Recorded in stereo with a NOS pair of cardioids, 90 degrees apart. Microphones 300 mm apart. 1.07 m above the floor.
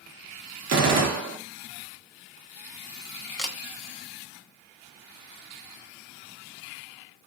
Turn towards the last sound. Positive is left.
turn(degrees=0)